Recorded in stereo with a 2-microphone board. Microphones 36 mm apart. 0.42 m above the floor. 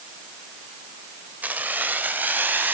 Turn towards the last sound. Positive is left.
turn(degrees=-60)  # may be behind; listen again after turning